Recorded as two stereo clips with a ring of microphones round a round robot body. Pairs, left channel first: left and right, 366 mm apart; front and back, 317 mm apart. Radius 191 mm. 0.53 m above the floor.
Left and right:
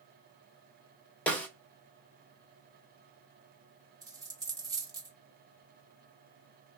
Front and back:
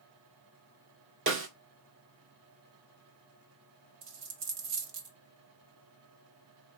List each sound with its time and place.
1.3 s a snare drum: 175° left, 1.4 m
4.0 s a dropped coin: 170° right, 1.3 m